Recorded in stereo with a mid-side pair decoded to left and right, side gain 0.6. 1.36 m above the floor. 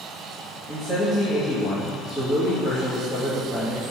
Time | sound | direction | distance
0.7 | a man speaking | 25° left | 2.5 m